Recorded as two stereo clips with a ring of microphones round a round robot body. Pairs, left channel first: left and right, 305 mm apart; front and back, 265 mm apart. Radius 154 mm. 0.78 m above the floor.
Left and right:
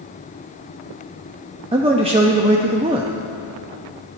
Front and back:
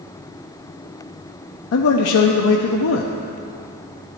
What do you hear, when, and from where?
1.7 s a man speaking: 20° right, 0.6 m